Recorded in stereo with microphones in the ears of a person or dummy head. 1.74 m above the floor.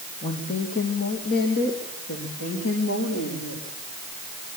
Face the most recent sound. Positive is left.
turn(degrees=75)  # may be behind; listen again after turning